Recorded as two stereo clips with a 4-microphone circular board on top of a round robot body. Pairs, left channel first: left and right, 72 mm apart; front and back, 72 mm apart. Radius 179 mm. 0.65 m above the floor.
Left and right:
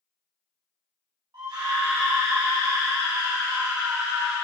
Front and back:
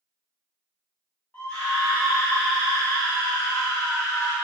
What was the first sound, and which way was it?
A scream, 65° right.